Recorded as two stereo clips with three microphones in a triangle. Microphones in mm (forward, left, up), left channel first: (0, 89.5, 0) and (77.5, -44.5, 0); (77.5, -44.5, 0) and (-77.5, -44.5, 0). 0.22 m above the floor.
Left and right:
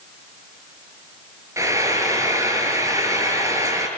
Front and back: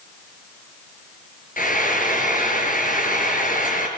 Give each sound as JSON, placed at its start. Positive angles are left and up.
{"t": 1.6, "sound": "frying", "azimuth_deg": 10, "distance_m": 4.5}